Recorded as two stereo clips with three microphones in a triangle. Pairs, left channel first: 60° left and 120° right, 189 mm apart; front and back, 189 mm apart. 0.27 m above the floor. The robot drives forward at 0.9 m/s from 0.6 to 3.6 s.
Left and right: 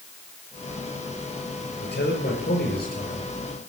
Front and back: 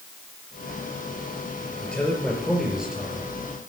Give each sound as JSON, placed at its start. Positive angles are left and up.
{"t": 1.8, "sound": "a man speaking", "azimuth_deg": 80, "distance_m": 5.0}